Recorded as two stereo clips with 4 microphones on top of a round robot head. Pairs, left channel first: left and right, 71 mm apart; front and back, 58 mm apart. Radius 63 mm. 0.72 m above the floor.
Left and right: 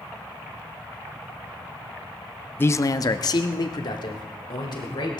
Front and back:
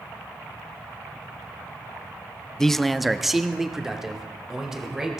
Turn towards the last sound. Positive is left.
turn(degrees=100)